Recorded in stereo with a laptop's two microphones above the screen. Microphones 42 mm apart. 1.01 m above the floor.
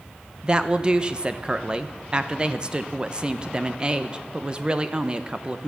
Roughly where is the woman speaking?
Right.